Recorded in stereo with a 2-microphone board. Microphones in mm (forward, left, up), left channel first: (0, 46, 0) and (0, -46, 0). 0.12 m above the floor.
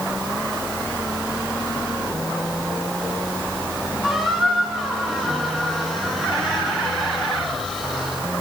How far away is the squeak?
About 5.5 m.